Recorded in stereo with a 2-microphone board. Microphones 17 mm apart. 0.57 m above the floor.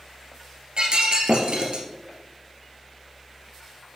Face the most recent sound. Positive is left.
turn(degrees=-65)  # may be behind; listen again after turning